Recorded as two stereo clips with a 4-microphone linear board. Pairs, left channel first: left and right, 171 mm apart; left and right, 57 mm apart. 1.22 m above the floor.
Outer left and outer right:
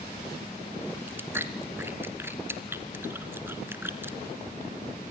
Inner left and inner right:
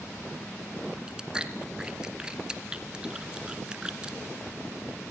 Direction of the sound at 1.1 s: 15° right (ahead or behind).